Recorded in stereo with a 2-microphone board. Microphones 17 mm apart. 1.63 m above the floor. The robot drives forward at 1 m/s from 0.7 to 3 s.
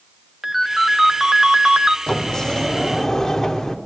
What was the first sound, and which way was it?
A ringtone, 20° right (ahead or behind).